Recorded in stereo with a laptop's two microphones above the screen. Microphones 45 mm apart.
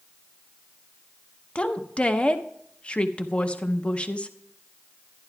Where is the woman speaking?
25° left (ahead or behind), 0.7 m.